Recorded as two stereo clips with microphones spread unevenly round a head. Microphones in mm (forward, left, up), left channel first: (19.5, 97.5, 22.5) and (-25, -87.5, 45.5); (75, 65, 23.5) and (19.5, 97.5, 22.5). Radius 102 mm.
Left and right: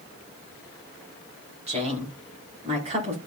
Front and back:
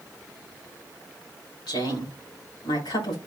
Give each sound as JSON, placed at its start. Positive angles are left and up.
{"t": 1.7, "sound": "a woman speaking", "azimuth_deg": -45, "distance_m": 4.5}